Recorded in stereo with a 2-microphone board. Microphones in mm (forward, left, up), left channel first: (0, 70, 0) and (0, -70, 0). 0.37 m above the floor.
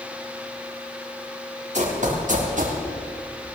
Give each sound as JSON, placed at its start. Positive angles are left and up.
{"t": 1.7, "sound": "running footsteps", "side_deg": -60, "distance_m": 4.5}